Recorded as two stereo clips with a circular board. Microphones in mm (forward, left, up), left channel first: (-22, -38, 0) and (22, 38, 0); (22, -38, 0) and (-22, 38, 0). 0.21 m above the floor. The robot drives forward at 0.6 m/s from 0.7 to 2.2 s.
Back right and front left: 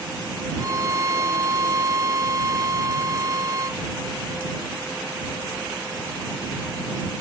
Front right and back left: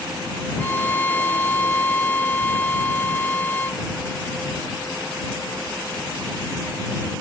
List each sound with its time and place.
0.6 s a violin: 10° left